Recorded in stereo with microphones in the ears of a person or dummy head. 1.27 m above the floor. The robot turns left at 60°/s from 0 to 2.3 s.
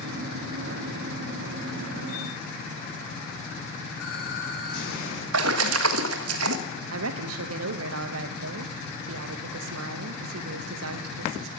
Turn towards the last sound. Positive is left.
turn(degrees=-75)  # may be behind; listen again after turning